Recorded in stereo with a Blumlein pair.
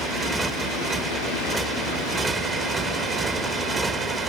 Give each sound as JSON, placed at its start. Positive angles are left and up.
{"t": 0.0, "sound": "a motorcycle", "azimuth_deg": -15}